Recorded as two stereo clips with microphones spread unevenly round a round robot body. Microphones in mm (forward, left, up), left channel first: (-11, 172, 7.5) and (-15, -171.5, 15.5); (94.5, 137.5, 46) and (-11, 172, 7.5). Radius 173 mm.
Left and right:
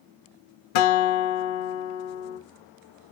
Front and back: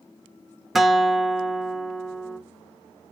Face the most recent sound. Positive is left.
turn(degrees=75)